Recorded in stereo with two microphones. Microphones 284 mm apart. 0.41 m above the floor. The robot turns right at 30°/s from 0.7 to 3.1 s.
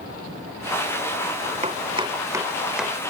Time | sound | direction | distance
1.6 | chopping | 25° right (ahead or behind) | ?